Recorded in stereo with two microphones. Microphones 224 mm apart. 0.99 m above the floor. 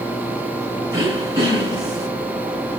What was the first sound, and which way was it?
Throat clearing, 15° right (ahead or behind).